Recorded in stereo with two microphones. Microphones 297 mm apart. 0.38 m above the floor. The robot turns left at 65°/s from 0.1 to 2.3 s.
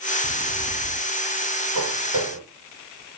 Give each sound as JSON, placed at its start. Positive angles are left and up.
{"t": 0.2, "sound": "footsteps", "azimuth_deg": 65, "distance_m": 2.5}
{"t": 1.8, "sound": "footsteps", "side_deg": -70, "distance_m": 4.0}